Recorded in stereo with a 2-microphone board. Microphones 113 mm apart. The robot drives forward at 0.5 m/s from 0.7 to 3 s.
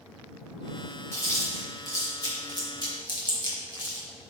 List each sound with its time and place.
1.1 s chewing: 25° left (ahead or behind), 2 m; by 4.1 s 40° left (ahead or behind), 1.5 m